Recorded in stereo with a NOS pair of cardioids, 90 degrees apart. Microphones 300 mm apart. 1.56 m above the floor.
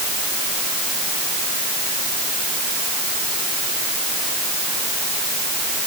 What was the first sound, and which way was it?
Only background noise.